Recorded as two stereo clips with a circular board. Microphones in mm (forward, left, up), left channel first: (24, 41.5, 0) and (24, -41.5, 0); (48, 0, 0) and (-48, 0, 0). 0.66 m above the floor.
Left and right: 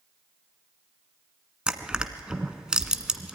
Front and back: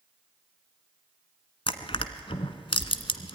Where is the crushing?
10° right, 1.2 m.